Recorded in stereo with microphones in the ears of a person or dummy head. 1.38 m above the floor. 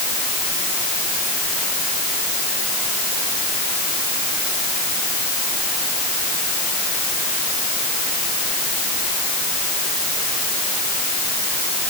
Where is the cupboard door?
No cupboard door in this recording.